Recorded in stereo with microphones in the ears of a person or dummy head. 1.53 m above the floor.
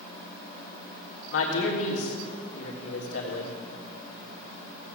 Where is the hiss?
No hiss in this recording.